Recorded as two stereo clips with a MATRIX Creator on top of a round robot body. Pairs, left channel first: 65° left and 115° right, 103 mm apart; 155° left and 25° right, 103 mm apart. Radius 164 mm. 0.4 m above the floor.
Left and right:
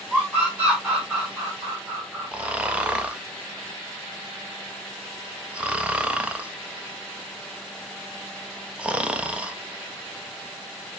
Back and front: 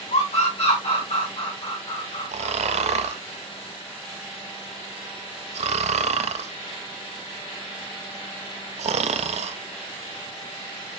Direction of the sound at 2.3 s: 35° right.